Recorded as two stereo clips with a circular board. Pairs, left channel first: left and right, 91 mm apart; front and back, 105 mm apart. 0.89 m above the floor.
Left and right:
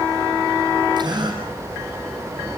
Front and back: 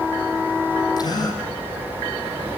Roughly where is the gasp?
Ahead right.